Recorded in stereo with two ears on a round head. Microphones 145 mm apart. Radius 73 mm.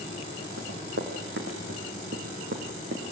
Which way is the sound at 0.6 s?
75° right (ahead or behind).